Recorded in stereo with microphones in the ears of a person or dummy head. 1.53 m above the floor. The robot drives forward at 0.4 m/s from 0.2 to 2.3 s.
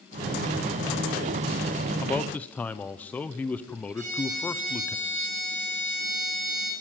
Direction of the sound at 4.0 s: 35° right (ahead or behind).